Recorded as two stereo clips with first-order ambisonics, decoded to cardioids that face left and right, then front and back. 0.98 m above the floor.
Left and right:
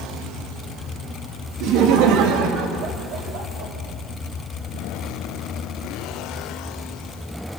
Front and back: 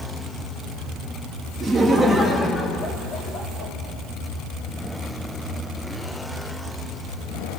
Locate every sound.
1.6 s laughter: 110° right, 1.7 m; by 3.7 s 50° right, 3 m